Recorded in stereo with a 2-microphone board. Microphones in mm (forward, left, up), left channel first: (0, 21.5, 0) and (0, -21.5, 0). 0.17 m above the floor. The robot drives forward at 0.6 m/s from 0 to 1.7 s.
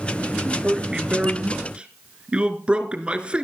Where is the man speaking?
20° right (ahead or behind), 3 m; by 3.4 s 25° right (ahead or behind), 2.5 m.